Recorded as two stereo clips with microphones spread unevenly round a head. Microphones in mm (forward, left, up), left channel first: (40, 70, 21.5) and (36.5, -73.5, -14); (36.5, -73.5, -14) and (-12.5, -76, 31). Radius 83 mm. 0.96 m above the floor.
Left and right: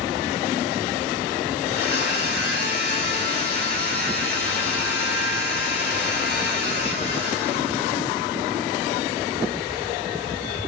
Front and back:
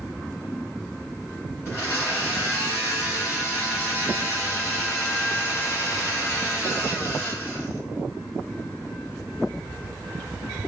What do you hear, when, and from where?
1.6 s a blender: 100° left, 2 m